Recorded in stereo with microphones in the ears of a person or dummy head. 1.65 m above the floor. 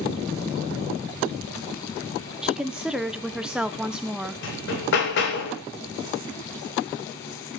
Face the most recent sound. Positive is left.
turn(degrees=65)  # may be behind; listen again after turning